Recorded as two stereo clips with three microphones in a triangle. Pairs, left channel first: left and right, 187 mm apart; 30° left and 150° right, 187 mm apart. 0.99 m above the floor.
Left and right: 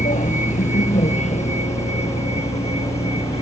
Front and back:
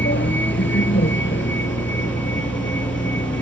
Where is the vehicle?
40° left; by 3.4 s 30° left.